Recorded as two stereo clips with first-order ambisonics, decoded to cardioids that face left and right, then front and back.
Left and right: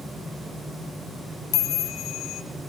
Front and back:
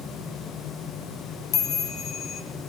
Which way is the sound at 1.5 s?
55° left.